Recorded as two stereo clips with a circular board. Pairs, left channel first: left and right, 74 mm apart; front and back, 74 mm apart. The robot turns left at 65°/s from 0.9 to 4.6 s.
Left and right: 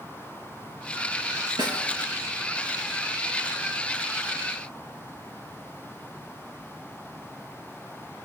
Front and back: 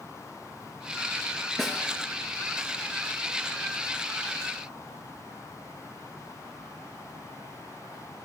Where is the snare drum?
85° right, 3.5 m; by 1.9 s 105° right, 3.5 m.